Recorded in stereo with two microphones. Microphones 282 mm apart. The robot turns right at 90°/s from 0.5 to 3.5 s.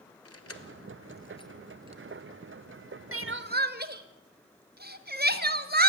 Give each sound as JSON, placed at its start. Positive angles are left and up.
{"t": 0.2, "sound": "keys jangling", "side_deg": 55, "distance_m": 1.6}
{"t": 3.1, "sound": "crying", "side_deg": -50, "distance_m": 1.0}